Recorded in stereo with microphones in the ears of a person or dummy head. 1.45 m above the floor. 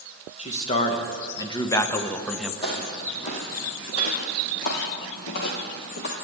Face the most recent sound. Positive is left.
turn(degrees=60)  # may be behind; listen again after turning